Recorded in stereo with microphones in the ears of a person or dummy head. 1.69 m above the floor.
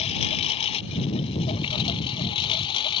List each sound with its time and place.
0.0 s a lawn mower: 35° left (ahead or behind); by 3.0 s 25° left (ahead or behind)